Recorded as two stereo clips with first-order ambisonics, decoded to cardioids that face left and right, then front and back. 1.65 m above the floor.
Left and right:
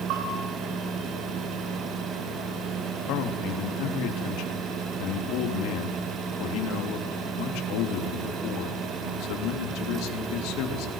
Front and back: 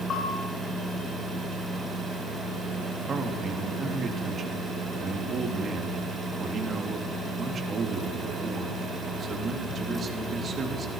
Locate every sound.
0.1 s a bell: 65° right, 9 m
3.1 s a man speaking: 115° left, 3 m